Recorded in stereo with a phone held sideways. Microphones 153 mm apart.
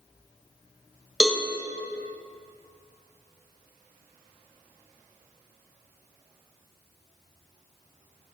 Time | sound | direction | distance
1.2 | a cowbell | 5° right (ahead or behind) | 0.7 m